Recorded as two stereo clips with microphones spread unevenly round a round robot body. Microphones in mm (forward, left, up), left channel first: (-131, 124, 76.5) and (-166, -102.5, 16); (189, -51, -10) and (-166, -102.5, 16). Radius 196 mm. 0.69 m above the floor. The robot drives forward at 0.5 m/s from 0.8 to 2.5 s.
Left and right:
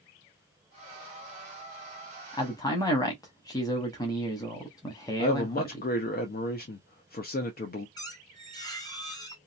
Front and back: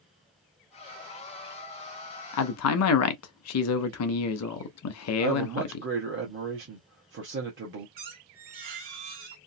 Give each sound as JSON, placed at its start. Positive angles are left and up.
{"t": 2.3, "sound": "a man speaking", "azimuth_deg": -5, "distance_m": 0.7}
{"t": 5.2, "sound": "a man speaking", "azimuth_deg": 135, "distance_m": 0.8}
{"t": 8.0, "sound": "a squeak", "azimuth_deg": 160, "distance_m": 1.3}